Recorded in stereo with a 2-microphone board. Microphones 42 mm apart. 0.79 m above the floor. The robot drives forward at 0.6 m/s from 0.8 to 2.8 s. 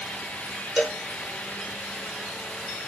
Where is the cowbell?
15° right (ahead or behind), 1.5 m.